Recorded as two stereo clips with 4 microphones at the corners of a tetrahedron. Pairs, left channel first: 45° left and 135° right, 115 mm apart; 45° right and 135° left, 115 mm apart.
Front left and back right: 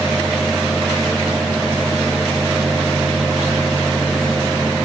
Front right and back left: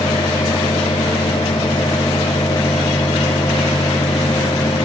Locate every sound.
Only background noise.